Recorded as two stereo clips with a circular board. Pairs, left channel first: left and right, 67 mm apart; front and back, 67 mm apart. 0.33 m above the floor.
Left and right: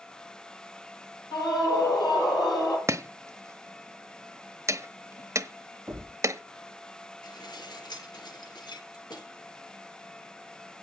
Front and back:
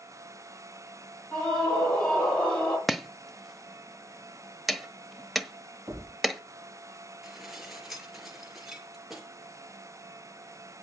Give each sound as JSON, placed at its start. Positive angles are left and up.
{"t": 1.3, "sound": "a scream", "azimuth_deg": 70, "distance_m": 8.0}
{"t": 2.9, "sound": "chopping", "azimuth_deg": -90, "distance_m": 1.0}
{"t": 5.9, "sound": "a thud", "azimuth_deg": -155, "distance_m": 8.5}
{"t": 7.2, "sound": "dishes clattering", "azimuth_deg": 95, "distance_m": 4.0}